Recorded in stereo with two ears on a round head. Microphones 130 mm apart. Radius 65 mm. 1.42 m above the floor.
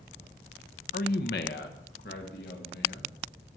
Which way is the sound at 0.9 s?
60° left (ahead or behind).